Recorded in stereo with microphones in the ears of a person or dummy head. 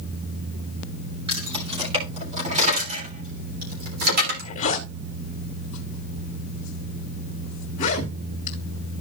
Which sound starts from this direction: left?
A zipper, at 4.2 s.